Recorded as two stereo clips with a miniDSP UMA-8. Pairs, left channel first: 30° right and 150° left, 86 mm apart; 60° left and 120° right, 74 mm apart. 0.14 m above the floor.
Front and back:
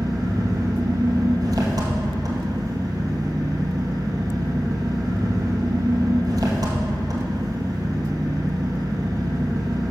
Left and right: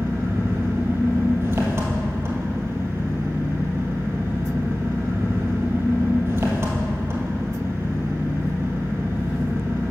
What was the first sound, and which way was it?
An engine running, 170° right.